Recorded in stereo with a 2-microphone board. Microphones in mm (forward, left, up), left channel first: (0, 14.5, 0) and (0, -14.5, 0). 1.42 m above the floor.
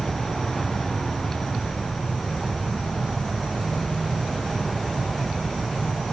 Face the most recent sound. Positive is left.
turn(degrees=5)  # may be behind; listen again after turning